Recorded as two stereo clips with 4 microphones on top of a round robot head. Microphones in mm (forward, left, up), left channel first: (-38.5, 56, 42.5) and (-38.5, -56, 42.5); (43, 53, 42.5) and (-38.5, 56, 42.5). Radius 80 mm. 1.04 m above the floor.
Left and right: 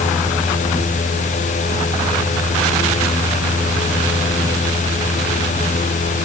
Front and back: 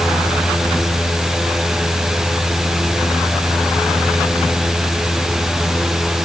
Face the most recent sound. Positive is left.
No sound to turn to.